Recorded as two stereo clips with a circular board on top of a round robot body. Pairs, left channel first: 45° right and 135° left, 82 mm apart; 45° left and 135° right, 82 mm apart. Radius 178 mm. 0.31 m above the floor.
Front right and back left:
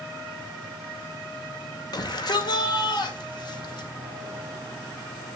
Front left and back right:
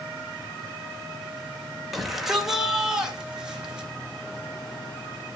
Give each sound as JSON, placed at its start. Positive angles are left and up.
{"t": 1.9, "sound": "a shout", "azimuth_deg": -45, "distance_m": 2.5}